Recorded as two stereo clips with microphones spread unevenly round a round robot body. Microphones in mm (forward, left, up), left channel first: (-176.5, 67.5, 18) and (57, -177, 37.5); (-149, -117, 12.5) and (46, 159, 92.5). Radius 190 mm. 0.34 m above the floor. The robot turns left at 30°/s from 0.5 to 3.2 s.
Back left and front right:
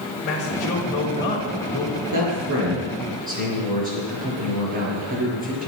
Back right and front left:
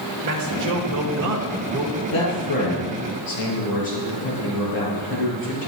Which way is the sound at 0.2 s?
80° left.